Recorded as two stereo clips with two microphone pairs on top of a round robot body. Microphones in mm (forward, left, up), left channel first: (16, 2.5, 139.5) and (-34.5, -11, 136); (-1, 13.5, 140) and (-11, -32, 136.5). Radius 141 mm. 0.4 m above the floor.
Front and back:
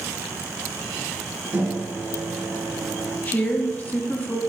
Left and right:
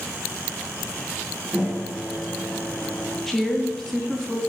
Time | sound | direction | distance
1.5 | a microwave | 165° right | 2.0 m
3.3 | a woman speaking | 15° right | 0.8 m